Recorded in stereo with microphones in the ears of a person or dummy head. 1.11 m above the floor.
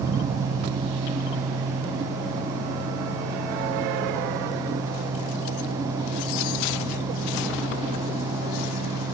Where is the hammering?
No hammering in this recording.